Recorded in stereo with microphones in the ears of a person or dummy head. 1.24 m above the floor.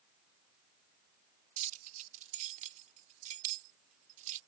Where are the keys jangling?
45° right (ahead or behind).